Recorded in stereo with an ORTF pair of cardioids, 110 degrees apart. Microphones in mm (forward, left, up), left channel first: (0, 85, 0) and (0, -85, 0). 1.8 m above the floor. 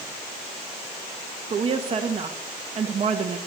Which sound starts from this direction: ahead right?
A woman speaking, at 1.5 s.